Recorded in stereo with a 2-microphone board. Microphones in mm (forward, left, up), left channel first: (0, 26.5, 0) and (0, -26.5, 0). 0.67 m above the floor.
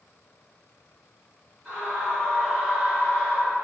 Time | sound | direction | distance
1.6 | a scream | 15° right (ahead or behind) | 1.5 m